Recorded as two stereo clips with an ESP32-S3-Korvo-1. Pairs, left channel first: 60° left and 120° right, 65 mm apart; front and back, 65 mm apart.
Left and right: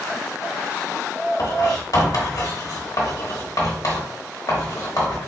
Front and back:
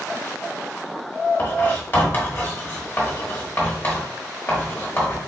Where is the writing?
55° left, 1.2 m.